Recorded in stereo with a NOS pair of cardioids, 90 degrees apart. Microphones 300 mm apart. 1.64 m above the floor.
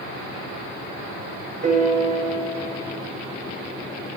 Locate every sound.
1.6 s a piano: 25° right, 0.7 m